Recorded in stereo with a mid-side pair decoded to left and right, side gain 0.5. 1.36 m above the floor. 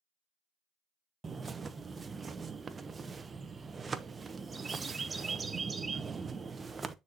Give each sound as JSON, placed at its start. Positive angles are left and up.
{"t": 1.2, "sound": "a bird", "azimuth_deg": -30, "distance_m": 0.9}